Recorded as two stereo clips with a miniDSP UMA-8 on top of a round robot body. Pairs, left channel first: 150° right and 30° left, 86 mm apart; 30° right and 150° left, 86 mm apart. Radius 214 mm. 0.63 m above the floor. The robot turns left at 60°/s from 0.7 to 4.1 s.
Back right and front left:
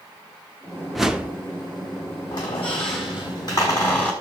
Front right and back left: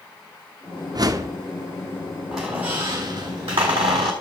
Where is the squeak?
120° right, 0.8 m; by 4.1 s 135° left, 0.8 m.